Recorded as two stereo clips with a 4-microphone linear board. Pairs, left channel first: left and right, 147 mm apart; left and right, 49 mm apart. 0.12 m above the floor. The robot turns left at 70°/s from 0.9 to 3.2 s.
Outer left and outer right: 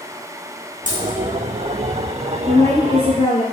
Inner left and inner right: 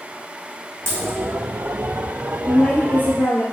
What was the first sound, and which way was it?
A dropped coin, 60° right (ahead or behind).